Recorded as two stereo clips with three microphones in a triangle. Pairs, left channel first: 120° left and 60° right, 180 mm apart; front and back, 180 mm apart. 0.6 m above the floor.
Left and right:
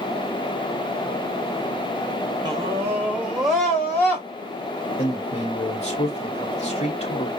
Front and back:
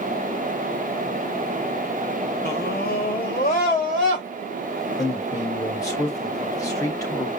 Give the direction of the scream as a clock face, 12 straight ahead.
12 o'clock.